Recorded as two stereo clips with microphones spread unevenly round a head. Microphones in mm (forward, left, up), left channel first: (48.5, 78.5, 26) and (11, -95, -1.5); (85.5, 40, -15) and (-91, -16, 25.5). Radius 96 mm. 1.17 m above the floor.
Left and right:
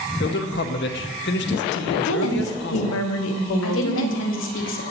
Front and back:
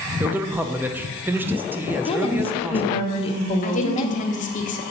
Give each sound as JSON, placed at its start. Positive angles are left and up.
{"t": 0.2, "sound": "a man speaking", "azimuth_deg": 110, "distance_m": 0.6}
{"t": 2.0, "sound": "a woman speaking", "azimuth_deg": 80, "distance_m": 0.8}
{"t": 3.6, "sound": "a woman speaking", "azimuth_deg": 65, "distance_m": 1.2}